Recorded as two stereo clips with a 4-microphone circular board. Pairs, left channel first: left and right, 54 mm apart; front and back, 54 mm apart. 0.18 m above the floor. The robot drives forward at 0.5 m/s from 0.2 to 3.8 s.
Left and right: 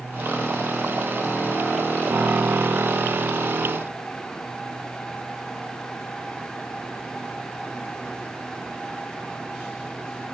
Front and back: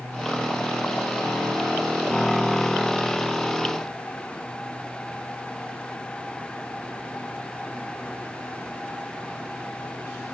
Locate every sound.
Only background noise.